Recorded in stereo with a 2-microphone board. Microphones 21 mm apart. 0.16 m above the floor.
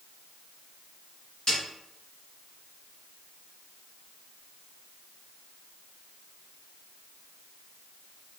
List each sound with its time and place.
1.5 s a snare drum: 40° left (ahead or behind), 2.0 m